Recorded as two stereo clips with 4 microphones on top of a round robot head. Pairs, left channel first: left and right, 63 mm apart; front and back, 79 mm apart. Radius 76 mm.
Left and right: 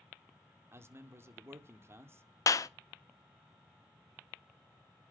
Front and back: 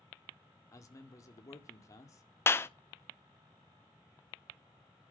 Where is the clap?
60° left, 1.0 m.